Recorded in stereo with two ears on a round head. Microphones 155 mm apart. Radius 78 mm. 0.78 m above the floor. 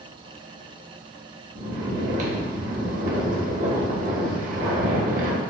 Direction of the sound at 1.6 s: 45° right (ahead or behind).